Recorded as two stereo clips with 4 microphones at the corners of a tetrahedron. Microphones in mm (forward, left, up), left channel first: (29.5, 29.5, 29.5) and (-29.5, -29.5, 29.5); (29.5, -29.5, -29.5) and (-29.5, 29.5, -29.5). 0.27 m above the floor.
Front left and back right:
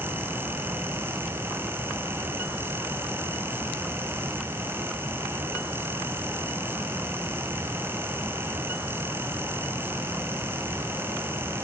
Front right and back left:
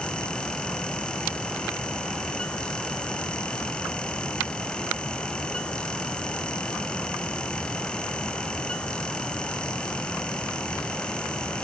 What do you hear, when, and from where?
Only background noise.